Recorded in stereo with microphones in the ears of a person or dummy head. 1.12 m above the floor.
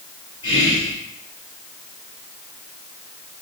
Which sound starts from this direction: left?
Whispering, at 0.4 s.